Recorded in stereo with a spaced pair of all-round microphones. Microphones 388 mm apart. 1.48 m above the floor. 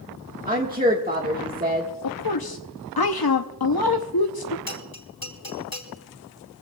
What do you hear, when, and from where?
0.5 s a woman speaking: 20° right (ahead or behind), 1.5 m
2.0 s a woman speaking: 65° left (ahead or behind), 0.7 m
4.7 s a bell: 60° left (ahead or behind), 3 m